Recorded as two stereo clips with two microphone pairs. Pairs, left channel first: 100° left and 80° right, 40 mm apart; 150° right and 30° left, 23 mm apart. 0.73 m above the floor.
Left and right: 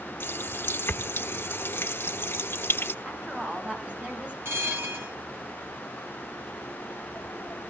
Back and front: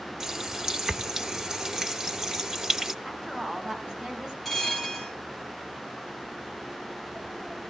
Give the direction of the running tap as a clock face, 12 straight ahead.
9 o'clock.